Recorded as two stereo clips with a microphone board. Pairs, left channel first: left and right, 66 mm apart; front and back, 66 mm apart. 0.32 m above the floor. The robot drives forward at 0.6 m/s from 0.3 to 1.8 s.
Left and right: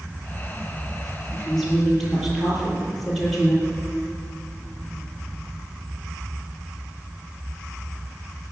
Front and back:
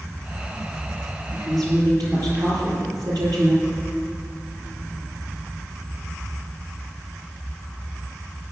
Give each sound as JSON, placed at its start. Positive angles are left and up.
{"t": 1.3, "sound": "a woman speaking", "azimuth_deg": 180, "distance_m": 7.0}